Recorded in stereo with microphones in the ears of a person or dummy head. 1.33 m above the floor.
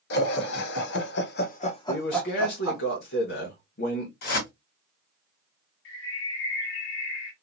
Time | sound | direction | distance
0.1 | laughter | 60° left (ahead or behind) | 1.4 m
1.9 | a man speaking | 55° left (ahead or behind) | 1.4 m
4.2 | a whoosh | 55° left (ahead or behind) | 1.8 m
5.8 | a bird | 75° left (ahead or behind) | 1.1 m